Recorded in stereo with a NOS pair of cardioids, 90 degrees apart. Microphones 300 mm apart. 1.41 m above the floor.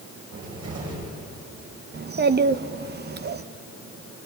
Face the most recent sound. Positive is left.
turn(degrees=-35)